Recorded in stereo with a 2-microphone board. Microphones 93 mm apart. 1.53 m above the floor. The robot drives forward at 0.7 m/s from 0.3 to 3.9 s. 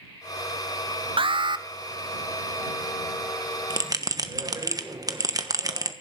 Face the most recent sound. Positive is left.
turn(degrees=-40)  # may be behind; listen again after turning